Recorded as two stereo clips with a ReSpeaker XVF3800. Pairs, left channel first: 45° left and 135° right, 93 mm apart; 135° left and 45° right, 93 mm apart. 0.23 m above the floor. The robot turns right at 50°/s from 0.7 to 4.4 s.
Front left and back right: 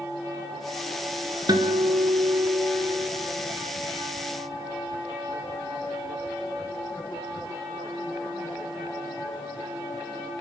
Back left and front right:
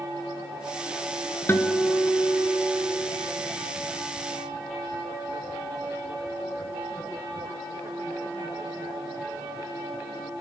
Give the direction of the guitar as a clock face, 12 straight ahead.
6 o'clock.